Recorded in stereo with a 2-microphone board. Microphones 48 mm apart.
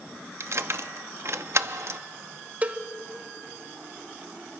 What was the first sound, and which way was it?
Keys jangling, 60° right (ahead or behind).